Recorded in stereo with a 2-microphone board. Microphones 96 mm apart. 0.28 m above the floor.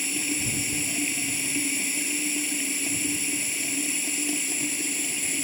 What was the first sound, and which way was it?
Running water, centre (ahead or behind).